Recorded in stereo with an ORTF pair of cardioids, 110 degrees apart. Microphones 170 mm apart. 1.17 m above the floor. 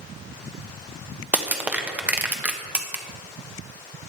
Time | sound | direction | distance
1.3 | crushing | 10° right | 1.2 m